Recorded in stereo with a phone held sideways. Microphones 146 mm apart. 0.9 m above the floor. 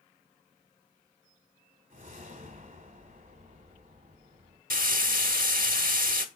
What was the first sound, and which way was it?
A whoosh, 65° right (ahead or behind).